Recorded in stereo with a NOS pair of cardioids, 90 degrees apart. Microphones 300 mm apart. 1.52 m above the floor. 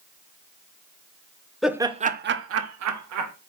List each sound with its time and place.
1.6 s laughter: straight ahead, 0.7 m; by 3.3 s 70° right, 1.2 m